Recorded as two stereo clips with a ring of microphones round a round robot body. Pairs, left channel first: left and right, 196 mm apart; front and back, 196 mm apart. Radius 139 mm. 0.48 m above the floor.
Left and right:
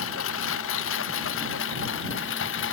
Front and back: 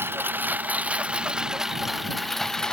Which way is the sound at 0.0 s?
100° left.